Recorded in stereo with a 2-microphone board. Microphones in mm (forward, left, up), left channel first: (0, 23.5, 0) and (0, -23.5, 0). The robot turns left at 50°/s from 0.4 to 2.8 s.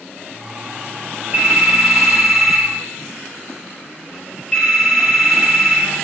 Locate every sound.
1.3 s a phone ringing: 130° right, 1.2 m; by 5.9 s 155° left, 1.2 m